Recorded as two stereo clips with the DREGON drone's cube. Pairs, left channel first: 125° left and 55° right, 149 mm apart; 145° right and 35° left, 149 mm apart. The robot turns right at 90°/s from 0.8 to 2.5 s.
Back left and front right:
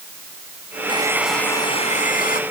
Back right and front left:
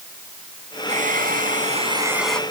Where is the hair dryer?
Straight ahead; by 2.4 s 135° left.